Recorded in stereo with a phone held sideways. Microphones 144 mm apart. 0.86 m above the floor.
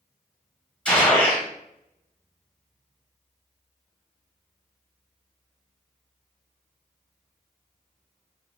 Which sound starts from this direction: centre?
A gunshot, at 0.8 s.